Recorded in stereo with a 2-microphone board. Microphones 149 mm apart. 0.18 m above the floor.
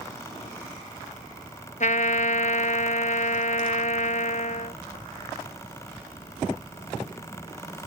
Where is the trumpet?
55° left (ahead or behind).